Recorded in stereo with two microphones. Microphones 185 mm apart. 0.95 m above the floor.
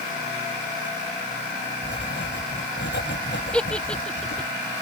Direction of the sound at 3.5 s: 5° left (ahead or behind).